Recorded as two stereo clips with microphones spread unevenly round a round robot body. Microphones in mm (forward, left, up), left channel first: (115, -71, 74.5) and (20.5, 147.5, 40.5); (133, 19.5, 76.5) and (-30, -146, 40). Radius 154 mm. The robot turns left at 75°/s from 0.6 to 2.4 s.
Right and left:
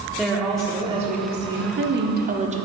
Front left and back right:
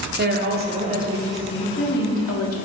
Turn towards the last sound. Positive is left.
turn(degrees=65)